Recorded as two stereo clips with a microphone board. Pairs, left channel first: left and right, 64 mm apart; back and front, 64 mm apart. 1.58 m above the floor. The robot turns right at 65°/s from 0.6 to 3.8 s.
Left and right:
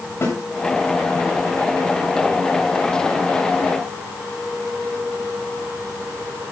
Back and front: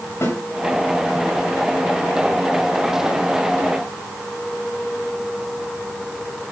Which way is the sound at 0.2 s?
135° left.